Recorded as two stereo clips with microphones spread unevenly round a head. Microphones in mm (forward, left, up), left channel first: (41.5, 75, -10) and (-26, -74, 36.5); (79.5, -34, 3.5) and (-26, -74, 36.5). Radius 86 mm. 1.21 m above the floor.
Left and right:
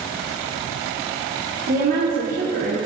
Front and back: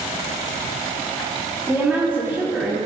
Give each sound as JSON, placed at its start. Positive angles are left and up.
{"t": 1.7, "sound": "a woman speaking", "azimuth_deg": -75, "distance_m": 2.0}